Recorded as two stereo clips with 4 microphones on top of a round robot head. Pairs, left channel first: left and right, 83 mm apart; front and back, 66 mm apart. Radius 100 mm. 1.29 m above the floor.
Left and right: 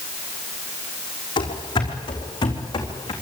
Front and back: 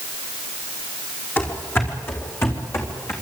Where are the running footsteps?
60° left, 4 m; by 3.1 s 50° left, 4.5 m.